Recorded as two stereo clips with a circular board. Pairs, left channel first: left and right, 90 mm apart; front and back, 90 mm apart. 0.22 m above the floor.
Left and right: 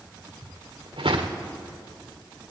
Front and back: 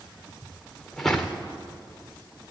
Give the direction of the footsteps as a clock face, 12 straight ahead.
3 o'clock.